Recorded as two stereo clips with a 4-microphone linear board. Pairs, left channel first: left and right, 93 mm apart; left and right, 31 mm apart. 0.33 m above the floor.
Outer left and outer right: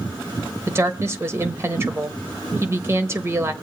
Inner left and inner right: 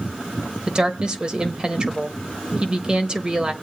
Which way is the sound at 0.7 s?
30° right (ahead or behind).